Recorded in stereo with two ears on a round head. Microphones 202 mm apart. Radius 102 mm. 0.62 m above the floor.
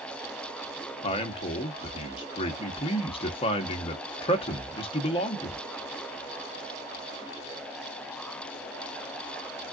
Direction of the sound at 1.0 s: 25° left (ahead or behind).